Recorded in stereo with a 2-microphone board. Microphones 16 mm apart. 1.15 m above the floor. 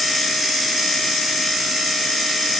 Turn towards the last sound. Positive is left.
No sound to turn to.